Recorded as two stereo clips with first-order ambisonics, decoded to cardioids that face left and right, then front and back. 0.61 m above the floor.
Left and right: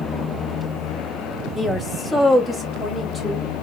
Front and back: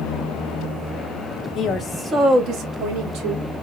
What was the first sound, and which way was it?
A woman speaking, 25° left.